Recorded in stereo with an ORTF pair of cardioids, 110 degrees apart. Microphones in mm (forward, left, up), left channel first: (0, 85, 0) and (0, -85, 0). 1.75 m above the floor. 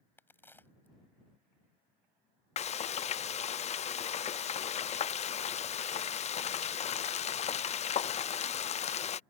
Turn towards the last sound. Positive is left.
turn(degrees=40)